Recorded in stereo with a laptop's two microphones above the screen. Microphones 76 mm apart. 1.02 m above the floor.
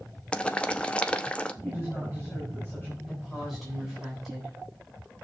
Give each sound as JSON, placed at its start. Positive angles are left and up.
{"t": 0.3, "sound": "boiling", "side_deg": 15, "distance_m": 0.6}
{"t": 1.6, "sound": "a woman speaking", "side_deg": 20, "distance_m": 7.5}
{"t": 3.1, "sound": "a woman speaking", "side_deg": 0, "distance_m": 7.5}